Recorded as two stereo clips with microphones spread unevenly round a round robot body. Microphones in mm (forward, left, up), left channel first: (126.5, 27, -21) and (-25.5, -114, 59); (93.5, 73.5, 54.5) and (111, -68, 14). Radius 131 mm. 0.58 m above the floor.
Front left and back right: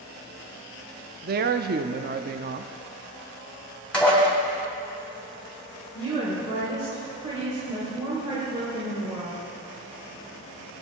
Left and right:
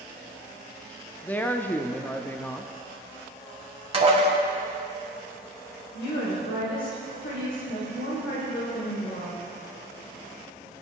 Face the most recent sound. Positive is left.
turn(degrees=140)